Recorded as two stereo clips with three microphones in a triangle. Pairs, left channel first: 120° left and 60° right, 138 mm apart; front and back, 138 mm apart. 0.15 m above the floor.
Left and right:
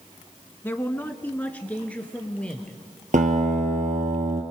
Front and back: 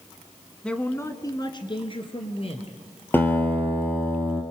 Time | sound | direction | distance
0.6 | a man speaking | 75° left | 1.0 m
3.1 | a guitar | 75° right | 2 m